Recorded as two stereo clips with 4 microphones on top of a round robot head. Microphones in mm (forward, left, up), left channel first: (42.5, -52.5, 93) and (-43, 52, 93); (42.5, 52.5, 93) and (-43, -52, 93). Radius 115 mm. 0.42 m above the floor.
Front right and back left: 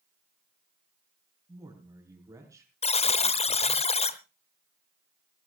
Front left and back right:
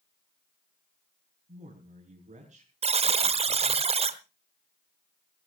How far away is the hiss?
No hiss in this recording.